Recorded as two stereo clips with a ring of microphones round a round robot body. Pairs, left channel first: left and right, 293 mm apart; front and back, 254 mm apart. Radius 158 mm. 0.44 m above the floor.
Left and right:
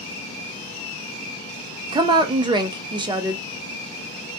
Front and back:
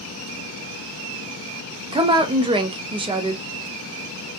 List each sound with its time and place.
1.9 s a woman speaking: 140° right, 0.7 m